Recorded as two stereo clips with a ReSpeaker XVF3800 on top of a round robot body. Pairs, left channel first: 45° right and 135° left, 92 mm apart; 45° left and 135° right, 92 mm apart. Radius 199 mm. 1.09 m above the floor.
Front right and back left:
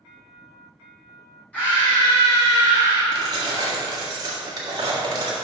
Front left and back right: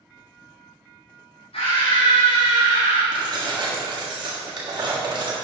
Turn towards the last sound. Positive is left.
turn(degrees=-175)